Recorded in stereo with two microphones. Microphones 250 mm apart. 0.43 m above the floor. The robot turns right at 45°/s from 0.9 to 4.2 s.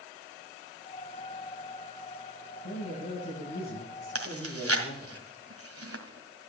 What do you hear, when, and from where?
2.6 s a man speaking: 70° left, 9 m; by 5.2 s 145° left, 9 m
4.2 s chewing: 70° right (ahead or behind), 1.8 m